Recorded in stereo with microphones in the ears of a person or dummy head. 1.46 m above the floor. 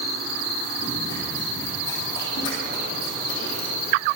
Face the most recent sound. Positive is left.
turn(degrees=40)  # may be behind; listen again after turning